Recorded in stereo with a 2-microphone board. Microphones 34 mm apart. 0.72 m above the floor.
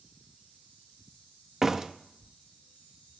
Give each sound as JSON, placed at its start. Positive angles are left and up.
{"t": 1.6, "sound": "a door slam", "side_deg": -15, "distance_m": 0.6}